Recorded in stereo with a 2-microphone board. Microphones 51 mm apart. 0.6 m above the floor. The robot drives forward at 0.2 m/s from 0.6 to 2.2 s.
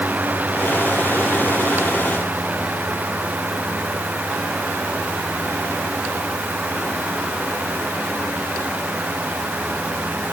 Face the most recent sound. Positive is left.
No sound to turn to.